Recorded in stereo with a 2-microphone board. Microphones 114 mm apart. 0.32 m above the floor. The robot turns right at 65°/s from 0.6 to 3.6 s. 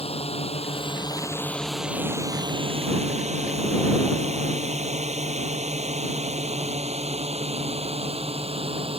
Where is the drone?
60° left (ahead or behind); by 9.0 s 55° right (ahead or behind).